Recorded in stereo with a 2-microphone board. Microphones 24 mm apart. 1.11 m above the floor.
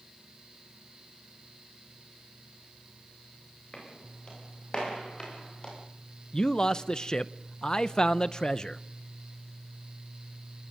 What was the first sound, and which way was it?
Footsteps, 35° left (ahead or behind).